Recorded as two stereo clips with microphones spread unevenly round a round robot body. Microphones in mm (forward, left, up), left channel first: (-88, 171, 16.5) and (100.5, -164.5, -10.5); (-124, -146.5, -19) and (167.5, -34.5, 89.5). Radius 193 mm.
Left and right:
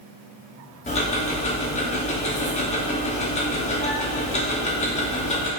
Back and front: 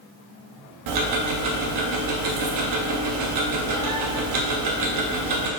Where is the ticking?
45° left, 0.7 m.